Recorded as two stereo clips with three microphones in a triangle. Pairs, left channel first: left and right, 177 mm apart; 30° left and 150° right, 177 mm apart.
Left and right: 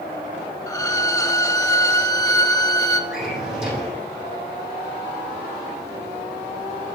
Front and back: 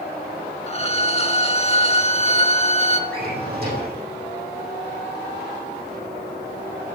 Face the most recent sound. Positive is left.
turn(degrees=-175)